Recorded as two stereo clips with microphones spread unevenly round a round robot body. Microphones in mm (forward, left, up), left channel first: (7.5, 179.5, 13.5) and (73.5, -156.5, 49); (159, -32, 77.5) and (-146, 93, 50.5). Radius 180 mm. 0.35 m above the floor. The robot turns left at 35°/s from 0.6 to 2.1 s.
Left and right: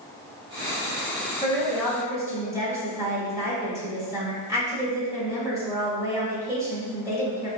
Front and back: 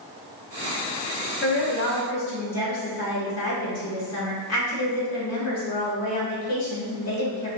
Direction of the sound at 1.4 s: 30° left.